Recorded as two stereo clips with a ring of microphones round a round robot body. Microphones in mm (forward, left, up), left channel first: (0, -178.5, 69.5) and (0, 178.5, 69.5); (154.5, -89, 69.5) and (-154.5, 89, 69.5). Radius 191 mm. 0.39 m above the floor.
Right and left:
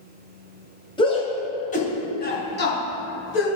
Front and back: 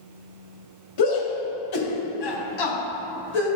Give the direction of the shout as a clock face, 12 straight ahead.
12 o'clock.